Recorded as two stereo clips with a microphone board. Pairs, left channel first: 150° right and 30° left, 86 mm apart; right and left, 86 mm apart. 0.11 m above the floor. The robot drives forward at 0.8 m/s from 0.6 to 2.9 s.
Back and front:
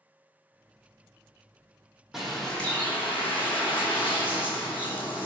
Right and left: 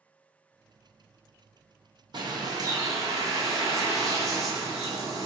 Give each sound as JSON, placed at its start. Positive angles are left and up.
{"t": 2.1, "sound": "a bird", "azimuth_deg": 115, "distance_m": 0.9}